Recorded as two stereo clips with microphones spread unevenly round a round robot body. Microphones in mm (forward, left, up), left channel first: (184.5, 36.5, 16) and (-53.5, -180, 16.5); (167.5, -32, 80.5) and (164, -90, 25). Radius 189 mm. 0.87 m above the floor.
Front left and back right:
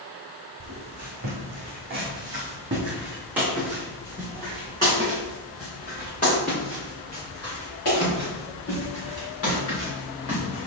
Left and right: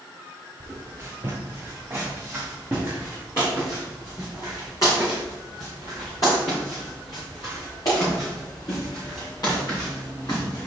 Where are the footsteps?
Straight behind, 2 m; by 10.7 s 100° left, 5.5 m.